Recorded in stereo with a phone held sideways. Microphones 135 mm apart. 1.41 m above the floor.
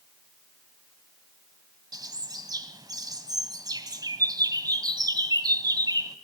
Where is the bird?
30° right (ahead or behind), 1.4 m.